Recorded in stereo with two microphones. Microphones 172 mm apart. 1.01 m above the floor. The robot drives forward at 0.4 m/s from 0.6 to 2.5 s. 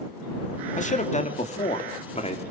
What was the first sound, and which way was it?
A man speaking, 45° left (ahead or behind).